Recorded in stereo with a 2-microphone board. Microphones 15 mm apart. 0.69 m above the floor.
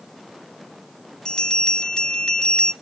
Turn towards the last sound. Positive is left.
turn(degrees=50)  # may be behind; listen again after turning